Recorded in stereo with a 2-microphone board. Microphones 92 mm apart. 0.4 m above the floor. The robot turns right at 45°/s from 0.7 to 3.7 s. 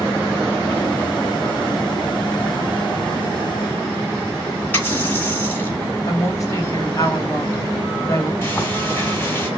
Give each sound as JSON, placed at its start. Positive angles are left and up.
{"t": 4.7, "sound": "a running tap", "side_deg": 20, "distance_m": 3.0}
{"t": 6.1, "sound": "a woman speaking", "side_deg": 35, "distance_m": 2.5}
{"t": 8.4, "sound": "frying", "side_deg": 20, "distance_m": 3.5}